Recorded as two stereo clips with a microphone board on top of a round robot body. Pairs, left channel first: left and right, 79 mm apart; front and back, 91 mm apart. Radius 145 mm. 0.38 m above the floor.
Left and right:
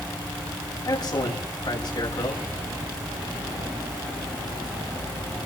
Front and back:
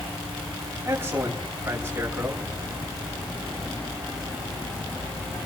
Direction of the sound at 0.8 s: 115° left.